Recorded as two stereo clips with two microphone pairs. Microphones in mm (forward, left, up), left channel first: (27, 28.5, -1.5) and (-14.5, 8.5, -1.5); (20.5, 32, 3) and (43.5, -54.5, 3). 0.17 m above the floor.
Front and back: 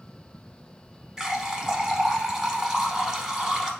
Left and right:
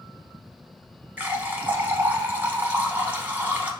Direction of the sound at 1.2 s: 95° right.